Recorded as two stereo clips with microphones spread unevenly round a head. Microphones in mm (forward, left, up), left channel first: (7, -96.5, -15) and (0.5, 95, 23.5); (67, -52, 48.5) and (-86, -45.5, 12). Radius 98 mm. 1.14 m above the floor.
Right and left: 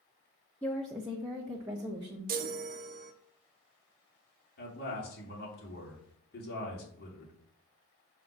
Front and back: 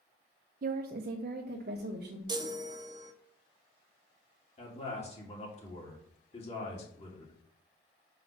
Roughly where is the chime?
Behind left.